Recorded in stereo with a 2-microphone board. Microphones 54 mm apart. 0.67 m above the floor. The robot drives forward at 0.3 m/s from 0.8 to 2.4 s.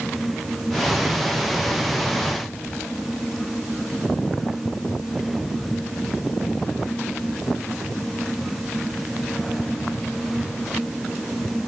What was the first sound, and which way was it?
Only background noise.